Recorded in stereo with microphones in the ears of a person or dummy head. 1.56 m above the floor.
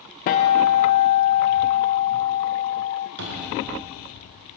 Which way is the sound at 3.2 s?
70° right (ahead or behind).